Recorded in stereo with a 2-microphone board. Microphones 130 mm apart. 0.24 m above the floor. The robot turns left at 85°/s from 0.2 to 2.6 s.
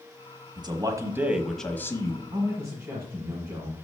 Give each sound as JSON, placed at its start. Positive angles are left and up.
{"t": 0.6, "sound": "a man speaking", "azimuth_deg": -100, "distance_m": 1.1}
{"t": 2.3, "sound": "a man speaking", "side_deg": -40, "distance_m": 1.6}